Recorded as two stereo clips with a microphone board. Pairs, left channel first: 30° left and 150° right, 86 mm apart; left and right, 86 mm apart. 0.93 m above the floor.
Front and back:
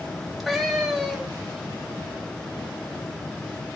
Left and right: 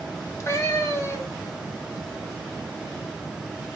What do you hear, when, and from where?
0.1 s a cat meowing: 120° left, 0.7 m